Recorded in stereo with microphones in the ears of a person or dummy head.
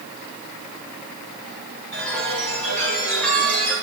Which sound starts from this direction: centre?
A chime, at 1.9 s.